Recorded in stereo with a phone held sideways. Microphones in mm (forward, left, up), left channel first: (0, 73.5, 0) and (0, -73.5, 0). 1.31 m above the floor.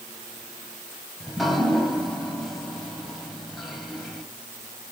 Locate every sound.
1.2 s dripping: centre (ahead or behind), 2.5 m